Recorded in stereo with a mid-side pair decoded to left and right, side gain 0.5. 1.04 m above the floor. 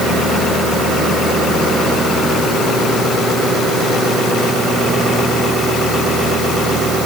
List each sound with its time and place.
Only background noise.